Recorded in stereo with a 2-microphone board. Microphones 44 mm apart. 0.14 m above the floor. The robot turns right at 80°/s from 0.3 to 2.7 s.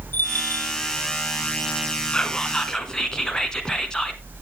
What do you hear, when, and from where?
0.1 s a bell: 50° left, 1.2 m; by 0.7 s 85° left, 1.2 m
2.1 s whispering: 25° left (ahead or behind), 1.3 m; by 4.2 s 15° left (ahead or behind), 1.3 m